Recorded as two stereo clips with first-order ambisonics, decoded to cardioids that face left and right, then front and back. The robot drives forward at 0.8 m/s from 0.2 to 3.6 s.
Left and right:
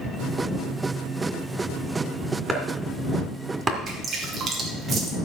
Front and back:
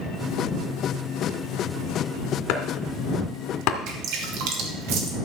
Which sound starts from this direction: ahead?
Chopping, at 2.5 s.